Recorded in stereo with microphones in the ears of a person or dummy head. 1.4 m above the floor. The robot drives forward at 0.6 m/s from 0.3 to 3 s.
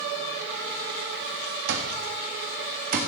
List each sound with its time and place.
1.7 s an alarm clock: 70° right (ahead or behind), 1.5 m; by 3.0 s 50° right (ahead or behind), 1.8 m